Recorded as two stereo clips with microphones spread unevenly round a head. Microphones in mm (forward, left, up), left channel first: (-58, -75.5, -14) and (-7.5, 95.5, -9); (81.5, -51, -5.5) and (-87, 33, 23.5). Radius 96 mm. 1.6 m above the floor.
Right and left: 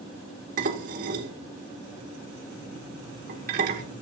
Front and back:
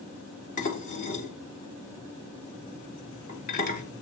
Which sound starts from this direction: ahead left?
Dishes clattering, at 0.6 s.